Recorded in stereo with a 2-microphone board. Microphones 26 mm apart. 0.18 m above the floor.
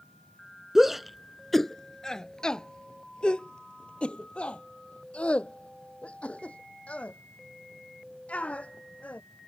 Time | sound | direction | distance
0.8 | a shout | 15° right (ahead or behind) | ?